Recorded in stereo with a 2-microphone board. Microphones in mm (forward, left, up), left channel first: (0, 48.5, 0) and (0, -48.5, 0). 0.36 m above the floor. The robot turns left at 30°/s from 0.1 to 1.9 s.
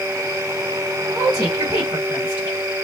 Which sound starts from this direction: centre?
A woman speaking, at 1.1 s.